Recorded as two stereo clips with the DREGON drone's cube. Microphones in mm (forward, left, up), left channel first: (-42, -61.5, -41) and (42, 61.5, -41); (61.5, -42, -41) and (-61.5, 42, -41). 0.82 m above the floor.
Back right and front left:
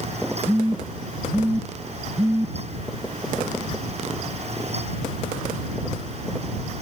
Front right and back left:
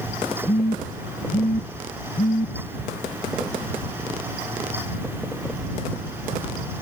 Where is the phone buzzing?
25° right.